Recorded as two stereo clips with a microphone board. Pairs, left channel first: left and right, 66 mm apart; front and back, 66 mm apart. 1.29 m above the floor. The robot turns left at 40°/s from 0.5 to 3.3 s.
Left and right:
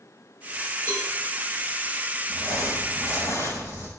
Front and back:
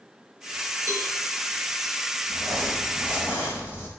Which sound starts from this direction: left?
Crumpling, at 2.3 s.